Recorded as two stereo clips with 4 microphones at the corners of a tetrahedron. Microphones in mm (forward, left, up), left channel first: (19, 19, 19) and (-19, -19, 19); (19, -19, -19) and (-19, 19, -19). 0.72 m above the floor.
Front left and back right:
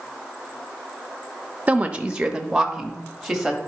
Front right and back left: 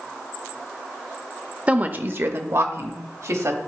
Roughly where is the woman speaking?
Behind.